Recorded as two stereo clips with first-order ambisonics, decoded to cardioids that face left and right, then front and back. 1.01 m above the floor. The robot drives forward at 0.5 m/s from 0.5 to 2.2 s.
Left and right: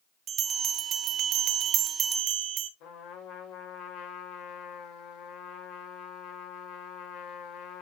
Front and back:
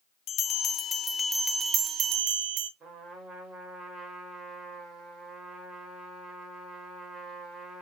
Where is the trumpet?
125° left, 2 m.